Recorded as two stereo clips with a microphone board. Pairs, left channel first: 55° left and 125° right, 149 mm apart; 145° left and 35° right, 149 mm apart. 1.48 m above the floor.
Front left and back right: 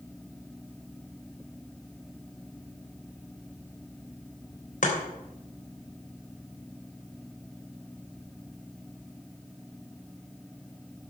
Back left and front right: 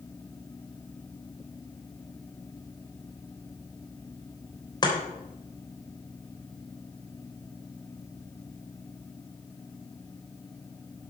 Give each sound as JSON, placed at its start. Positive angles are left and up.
{"t": 4.8, "sound": "chopping", "azimuth_deg": 85, "distance_m": 3.0}